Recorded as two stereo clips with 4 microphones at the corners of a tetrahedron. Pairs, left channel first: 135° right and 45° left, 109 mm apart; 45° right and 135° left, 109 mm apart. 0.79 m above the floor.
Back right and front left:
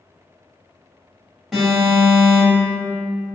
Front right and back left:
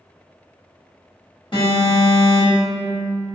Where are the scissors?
No scissors in this recording.